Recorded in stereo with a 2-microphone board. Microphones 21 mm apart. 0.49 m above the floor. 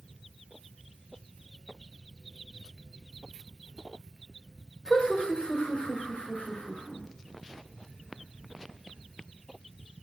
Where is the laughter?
55° left (ahead or behind), 1.6 m; by 7.0 s 60° left (ahead or behind), 2 m.